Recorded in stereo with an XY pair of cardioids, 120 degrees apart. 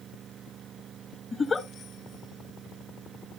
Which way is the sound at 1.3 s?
25° left.